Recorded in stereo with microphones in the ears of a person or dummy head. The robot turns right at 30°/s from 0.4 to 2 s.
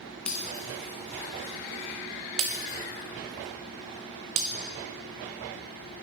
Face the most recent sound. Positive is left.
turn(degrees=-20)  # may be behind; listen again after turning